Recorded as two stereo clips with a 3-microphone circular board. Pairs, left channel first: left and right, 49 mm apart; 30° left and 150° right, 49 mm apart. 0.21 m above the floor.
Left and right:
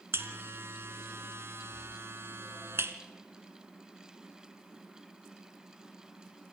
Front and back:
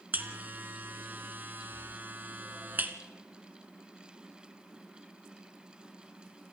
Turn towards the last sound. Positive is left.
turn(degrees=-105)